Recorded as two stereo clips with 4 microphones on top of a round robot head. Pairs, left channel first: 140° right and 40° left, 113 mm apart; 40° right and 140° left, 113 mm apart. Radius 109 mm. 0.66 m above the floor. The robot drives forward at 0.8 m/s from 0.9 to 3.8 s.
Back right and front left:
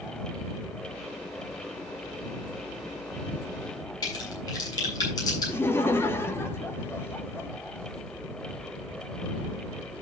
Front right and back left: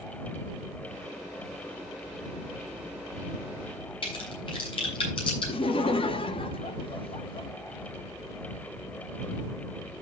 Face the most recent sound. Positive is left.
turn(degrees=-70)